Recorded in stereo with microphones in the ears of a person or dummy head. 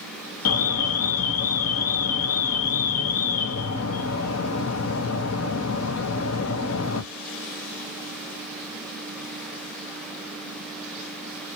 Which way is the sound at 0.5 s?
80° left.